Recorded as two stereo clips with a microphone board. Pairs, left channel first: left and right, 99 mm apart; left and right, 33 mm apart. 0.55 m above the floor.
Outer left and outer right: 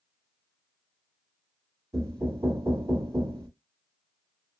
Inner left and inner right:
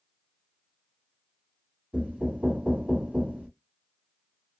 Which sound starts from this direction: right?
Knocking, at 1.9 s.